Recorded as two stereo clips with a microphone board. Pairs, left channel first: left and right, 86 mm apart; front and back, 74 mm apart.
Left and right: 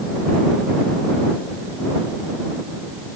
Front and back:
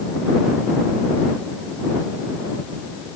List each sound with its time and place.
Only background noise.